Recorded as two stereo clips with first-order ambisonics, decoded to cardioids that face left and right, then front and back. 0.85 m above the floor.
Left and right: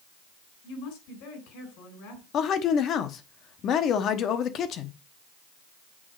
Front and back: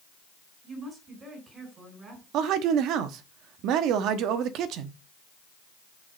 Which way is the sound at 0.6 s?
105° left.